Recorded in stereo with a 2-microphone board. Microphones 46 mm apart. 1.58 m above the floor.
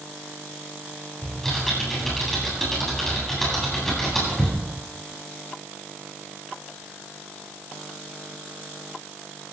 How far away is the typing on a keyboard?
About 9 m.